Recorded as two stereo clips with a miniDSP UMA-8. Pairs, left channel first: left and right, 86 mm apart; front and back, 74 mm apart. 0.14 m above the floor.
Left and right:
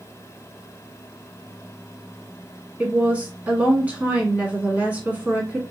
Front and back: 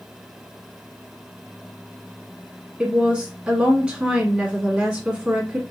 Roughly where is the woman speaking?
Behind right.